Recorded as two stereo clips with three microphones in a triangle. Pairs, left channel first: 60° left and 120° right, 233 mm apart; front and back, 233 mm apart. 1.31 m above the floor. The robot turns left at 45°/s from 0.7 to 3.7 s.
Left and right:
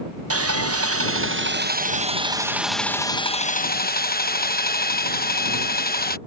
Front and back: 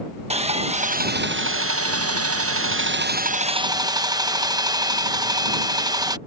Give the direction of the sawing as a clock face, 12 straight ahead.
4 o'clock.